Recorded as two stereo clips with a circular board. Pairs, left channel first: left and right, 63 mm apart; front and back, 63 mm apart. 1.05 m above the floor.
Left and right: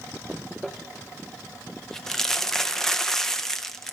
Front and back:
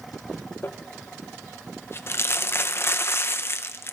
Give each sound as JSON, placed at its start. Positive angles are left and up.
{"t": 0.6, "sound": "crumpling", "azimuth_deg": 15, "distance_m": 0.5}